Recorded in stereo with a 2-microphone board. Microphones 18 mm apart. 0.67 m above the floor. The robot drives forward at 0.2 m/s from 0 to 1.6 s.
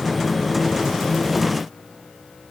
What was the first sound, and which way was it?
Only background noise.